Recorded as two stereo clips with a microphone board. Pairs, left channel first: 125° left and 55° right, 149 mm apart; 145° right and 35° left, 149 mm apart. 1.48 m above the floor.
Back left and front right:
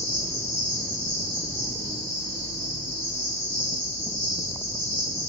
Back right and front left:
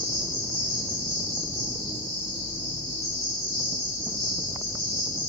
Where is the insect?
75° left, 8 m.